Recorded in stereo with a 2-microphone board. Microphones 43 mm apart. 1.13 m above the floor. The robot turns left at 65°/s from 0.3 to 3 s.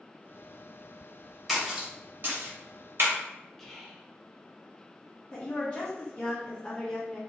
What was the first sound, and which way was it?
A splash, centre (ahead or behind).